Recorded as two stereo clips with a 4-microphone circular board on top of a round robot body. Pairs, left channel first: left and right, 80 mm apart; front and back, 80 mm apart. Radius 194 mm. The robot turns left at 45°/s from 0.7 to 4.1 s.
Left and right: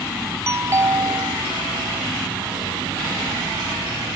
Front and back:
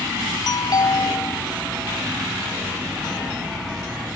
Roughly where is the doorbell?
Ahead right.